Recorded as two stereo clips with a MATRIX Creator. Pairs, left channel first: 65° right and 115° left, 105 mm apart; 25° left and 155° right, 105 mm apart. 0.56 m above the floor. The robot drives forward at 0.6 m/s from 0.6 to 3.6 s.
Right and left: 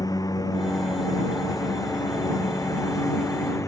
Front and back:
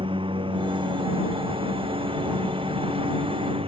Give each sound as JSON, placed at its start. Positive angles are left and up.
{"t": 0.0, "sound": "a lawn mower", "azimuth_deg": -120}